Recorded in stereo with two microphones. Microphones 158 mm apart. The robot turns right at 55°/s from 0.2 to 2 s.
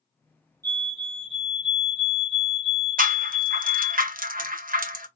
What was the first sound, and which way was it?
A fire alarm, 140° right.